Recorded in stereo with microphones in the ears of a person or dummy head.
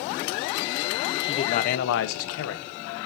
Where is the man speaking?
30° left (ahead or behind), 0.9 m; by 2.8 s 65° left (ahead or behind), 1.3 m.